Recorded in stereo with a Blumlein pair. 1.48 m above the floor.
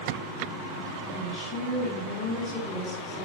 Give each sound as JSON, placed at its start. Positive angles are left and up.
{"t": 1.1, "sound": "a woman speaking", "azimuth_deg": 15, "distance_m": 6.0}